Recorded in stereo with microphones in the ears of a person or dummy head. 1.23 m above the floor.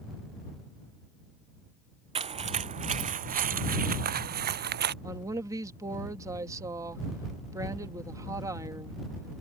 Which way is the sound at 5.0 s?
20° right (ahead or behind).